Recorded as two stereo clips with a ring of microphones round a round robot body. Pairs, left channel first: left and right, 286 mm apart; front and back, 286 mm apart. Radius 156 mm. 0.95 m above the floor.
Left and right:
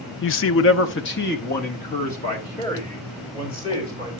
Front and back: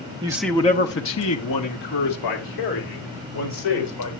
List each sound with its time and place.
0.2 s a man speaking: 115° left, 0.7 m; by 4.1 s 15° left, 4 m